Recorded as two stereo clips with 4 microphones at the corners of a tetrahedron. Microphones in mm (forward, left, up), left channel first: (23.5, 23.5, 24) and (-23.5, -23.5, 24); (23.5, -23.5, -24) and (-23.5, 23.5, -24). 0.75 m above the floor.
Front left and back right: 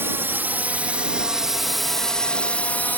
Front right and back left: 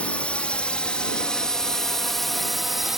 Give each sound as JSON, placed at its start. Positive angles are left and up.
{"t": 0.0, "sound": "a drone", "azimuth_deg": -105}